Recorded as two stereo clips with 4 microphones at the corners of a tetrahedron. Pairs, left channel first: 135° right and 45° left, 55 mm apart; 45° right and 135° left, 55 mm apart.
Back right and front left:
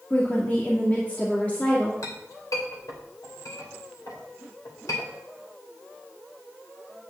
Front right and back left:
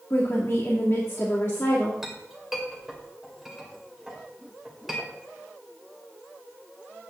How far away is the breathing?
No breathing in this recording.